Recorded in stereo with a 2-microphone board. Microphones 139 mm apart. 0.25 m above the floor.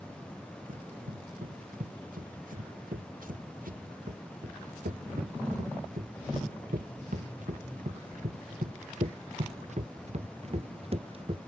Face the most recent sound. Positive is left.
turn(degrees=-40)  # may be behind; listen again after turning